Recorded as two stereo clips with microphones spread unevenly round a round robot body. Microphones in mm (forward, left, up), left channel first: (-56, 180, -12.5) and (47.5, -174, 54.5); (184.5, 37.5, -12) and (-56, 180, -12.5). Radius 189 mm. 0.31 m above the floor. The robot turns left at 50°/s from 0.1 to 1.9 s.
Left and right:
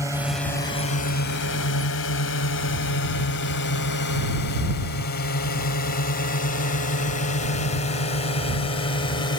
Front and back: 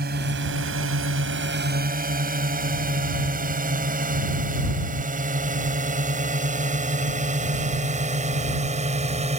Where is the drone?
165° right; by 9.4 s 130° left.